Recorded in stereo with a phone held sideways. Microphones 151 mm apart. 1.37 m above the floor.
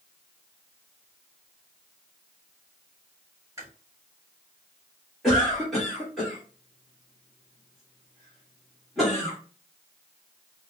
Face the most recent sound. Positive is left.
turn(degrees=0)  # may be behind; listen again after turning